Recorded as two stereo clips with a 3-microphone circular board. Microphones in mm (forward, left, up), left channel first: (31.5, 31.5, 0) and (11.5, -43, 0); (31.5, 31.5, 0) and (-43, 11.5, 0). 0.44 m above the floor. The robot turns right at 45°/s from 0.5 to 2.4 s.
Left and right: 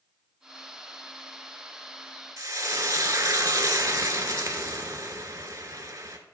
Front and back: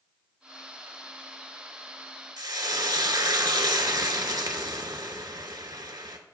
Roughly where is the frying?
Behind right.